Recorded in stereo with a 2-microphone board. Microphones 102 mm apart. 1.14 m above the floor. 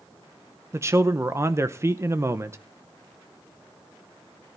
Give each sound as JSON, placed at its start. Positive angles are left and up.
{"t": 0.7, "sound": "a man speaking", "side_deg": -25, "distance_m": 0.8}